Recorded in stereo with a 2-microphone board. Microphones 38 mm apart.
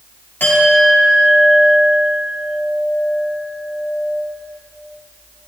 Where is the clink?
65° left (ahead or behind), 3.5 m.